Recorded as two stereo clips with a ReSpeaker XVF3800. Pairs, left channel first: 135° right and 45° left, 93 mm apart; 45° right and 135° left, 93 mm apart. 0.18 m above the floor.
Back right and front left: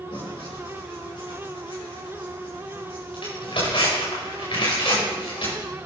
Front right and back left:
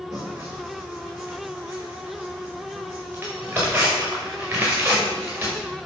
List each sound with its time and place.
0.1 s tearing paper: 155° right, 5.5 m